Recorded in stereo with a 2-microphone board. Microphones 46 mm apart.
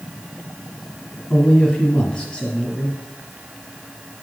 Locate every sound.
1.3 s a man speaking: 15° left (ahead or behind), 1.6 m